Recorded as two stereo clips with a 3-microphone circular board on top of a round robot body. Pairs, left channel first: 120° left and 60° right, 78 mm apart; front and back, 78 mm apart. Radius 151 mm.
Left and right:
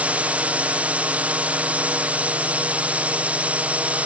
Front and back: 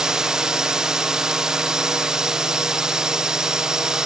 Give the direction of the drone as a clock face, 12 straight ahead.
4 o'clock.